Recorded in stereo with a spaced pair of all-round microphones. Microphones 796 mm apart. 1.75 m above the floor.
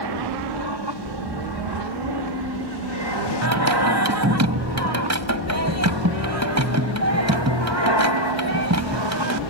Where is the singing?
20° right (ahead or behind).